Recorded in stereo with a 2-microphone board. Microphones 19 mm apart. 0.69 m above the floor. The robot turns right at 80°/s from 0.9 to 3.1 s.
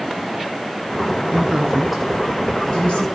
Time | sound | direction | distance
1.3 | a woman speaking | 65° right (ahead or behind) | 8 m